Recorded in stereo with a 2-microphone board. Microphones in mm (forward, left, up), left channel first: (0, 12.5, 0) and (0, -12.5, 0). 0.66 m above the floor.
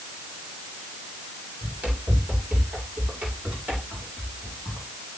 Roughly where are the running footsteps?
Right.